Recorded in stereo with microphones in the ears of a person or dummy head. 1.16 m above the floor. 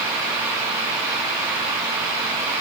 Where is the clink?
I don't hear a clink.